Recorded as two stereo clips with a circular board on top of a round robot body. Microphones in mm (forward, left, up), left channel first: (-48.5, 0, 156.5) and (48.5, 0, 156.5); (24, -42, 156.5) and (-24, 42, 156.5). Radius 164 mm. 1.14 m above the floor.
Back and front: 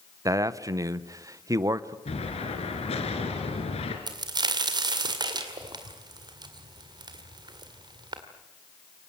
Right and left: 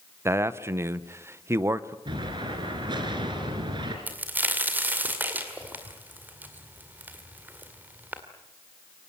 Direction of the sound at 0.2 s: 55° left.